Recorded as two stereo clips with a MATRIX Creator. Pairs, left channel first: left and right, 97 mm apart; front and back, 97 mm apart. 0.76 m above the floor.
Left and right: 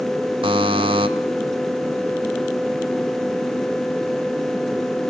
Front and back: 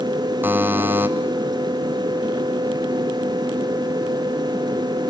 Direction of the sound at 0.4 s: 110° right.